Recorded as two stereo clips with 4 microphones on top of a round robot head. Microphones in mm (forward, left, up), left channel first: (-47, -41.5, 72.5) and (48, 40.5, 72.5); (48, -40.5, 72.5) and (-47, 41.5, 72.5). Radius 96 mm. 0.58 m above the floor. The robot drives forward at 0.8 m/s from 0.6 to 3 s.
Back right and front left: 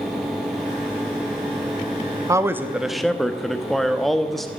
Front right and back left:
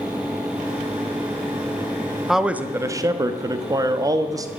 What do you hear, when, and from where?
2.3 s a man speaking: 55° left, 1.0 m; by 4.5 s 135° left, 1.0 m